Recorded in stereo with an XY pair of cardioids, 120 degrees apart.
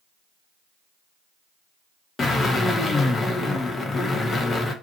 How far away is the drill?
About 0.9 m.